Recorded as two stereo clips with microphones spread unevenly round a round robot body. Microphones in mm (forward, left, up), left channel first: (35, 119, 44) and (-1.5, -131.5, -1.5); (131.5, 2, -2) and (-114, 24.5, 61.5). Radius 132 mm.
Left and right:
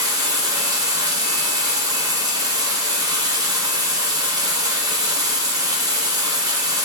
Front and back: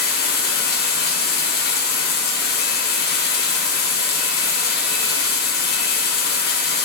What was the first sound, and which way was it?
Running water, 30° right.